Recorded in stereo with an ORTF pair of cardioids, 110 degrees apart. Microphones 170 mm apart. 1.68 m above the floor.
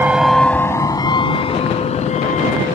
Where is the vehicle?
10° right; by 2.8 s 45° left.